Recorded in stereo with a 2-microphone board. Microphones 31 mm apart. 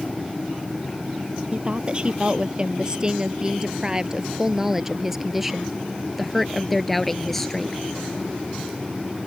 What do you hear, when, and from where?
1.5 s a woman speaking: 35° right (ahead or behind); by 7.8 s 10° left (ahead or behind)